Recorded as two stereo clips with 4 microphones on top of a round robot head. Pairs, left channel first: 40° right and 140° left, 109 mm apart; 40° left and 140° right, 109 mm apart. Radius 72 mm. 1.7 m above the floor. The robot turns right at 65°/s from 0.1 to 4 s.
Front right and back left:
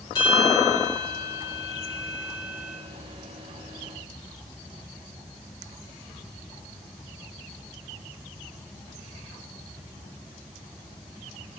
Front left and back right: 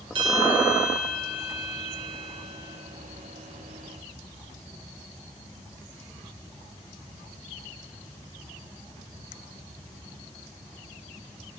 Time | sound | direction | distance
0.1 | a bell | 95° right | 2.5 m